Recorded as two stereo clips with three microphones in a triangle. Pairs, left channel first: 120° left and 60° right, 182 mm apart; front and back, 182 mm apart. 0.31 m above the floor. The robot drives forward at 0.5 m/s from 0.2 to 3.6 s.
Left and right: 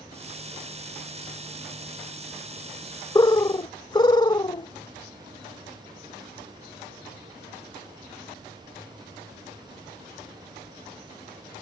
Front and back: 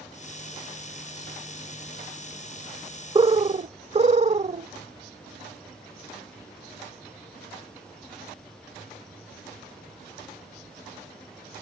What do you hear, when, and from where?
3.1 s a bird: 165° left; by 4.7 s 170° left